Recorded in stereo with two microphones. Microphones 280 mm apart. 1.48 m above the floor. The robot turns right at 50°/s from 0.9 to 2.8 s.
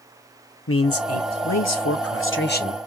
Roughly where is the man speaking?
Ahead left.